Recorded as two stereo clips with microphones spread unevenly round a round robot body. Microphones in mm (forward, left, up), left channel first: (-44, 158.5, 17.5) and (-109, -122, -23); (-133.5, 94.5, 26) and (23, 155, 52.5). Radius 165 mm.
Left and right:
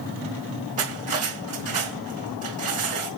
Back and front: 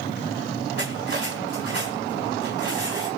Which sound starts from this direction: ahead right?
Cutlery clinking, at 0.8 s.